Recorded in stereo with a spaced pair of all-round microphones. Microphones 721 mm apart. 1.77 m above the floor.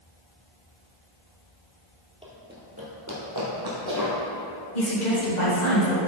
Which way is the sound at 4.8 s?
75° left (ahead or behind).